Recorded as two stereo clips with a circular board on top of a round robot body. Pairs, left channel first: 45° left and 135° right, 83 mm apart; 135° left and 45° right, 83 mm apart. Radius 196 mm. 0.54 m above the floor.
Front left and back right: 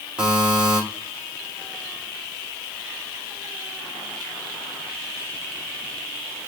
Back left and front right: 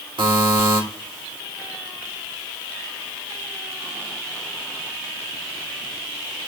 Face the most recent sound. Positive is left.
turn(degrees=-55)